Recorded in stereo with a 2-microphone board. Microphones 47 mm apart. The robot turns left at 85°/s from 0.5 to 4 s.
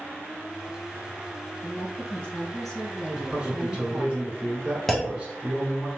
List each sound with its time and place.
1.6 s a woman speaking: 25° left (ahead or behind), 1.7 m; by 4.1 s 25° right (ahead or behind), 1.7 m
3.1 s a man speaking: centre (ahead or behind), 1.2 m; by 5.9 s 20° right (ahead or behind), 1.2 m
4.9 s a clunk: 5° left (ahead or behind), 0.6 m